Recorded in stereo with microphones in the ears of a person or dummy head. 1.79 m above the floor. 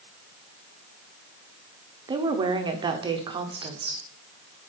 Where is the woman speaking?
25° right (ahead or behind), 0.8 m.